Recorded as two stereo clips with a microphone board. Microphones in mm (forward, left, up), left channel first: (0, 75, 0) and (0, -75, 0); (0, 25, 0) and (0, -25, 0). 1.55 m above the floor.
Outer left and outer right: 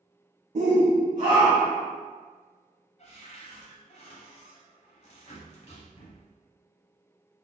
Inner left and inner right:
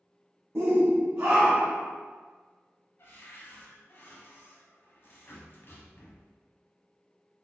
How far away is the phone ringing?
I don't hear a phone ringing.